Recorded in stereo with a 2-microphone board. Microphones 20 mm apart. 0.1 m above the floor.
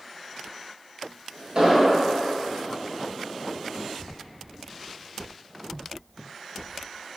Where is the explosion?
45° right (ahead or behind), 1.1 m.